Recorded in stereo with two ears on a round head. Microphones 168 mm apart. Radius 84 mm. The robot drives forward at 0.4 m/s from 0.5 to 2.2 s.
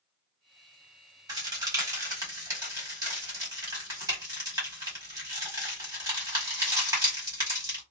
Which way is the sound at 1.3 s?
20° right (ahead or behind).